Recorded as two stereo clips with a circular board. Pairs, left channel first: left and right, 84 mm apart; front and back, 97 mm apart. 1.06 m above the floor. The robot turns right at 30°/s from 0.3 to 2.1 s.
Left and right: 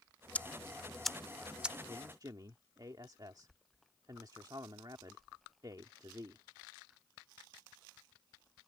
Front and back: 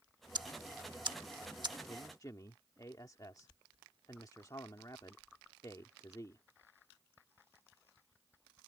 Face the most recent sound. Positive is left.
turn(degrees=-50)